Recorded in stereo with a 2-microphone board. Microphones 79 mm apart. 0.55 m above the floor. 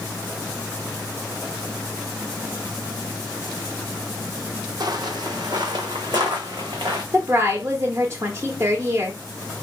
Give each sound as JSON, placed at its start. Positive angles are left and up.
{"t": 4.8, "sound": "footsteps", "side_deg": -60, "distance_m": 1.0}
{"t": 7.1, "sound": "a woman speaking", "side_deg": -30, "distance_m": 0.8}